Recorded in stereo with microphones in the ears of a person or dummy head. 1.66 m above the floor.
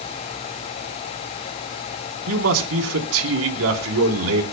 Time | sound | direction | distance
2.3 | a man speaking | 85° right | 4 m